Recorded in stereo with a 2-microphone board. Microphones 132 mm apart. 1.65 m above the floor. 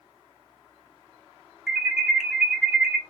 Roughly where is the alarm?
Centre.